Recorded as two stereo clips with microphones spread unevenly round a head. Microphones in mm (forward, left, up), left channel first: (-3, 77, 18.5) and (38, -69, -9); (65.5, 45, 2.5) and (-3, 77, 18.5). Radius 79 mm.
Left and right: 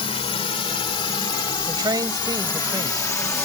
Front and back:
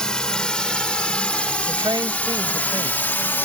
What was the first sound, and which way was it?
A drone, 55° left.